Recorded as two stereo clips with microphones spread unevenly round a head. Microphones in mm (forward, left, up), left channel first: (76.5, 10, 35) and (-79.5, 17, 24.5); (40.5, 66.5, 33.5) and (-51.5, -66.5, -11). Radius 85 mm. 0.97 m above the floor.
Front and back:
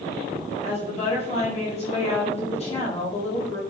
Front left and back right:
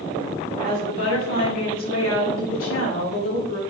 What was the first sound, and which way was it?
A woman speaking, 50° left.